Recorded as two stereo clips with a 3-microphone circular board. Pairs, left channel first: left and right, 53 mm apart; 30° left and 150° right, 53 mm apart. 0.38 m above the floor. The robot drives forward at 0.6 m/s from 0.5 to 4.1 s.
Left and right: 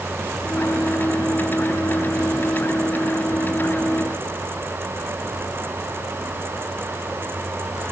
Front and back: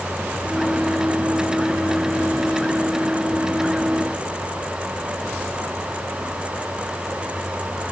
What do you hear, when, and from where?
Only background noise.